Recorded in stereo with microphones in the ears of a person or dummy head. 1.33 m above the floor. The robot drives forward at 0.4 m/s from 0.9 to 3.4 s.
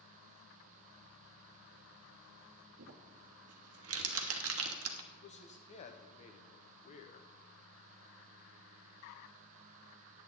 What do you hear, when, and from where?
2.8 s crumpling: 70° right (ahead or behind), 1.1 m
5.1 s a man speaking: 40° left (ahead or behind), 1.0 m